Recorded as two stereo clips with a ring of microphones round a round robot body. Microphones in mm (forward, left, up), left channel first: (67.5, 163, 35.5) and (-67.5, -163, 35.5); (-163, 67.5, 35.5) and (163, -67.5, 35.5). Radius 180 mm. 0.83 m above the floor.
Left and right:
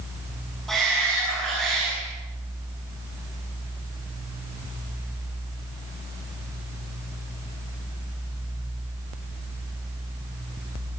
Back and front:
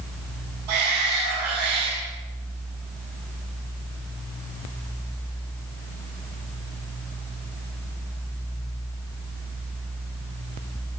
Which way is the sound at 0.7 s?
20° right.